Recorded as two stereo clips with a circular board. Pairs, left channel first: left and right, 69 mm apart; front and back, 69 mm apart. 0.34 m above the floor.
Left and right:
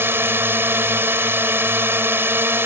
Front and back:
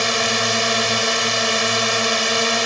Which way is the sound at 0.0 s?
90° right.